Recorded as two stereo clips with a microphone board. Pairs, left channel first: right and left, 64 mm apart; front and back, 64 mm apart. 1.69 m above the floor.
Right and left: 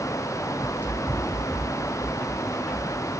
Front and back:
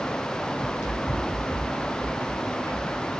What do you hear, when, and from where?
0.6 s running footsteps: 40° right, 3 m; by 3.1 s 25° right, 5 m